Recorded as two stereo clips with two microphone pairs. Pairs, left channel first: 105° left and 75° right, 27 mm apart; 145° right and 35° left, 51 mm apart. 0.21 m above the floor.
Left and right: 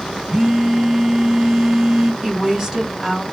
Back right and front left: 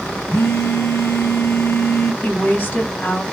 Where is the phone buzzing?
140° right, 0.6 m.